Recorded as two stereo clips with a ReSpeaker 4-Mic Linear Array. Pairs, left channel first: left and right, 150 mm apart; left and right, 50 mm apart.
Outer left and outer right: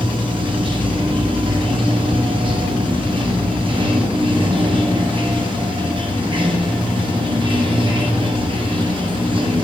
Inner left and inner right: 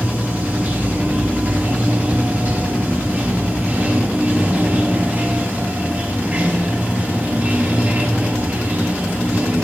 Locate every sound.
0.0 s running water: 35° right (ahead or behind), 0.7 m